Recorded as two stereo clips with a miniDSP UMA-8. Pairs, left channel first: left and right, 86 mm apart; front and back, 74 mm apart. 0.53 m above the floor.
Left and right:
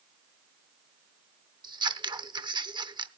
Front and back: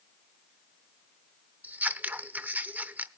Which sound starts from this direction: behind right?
Scissors, at 1.6 s.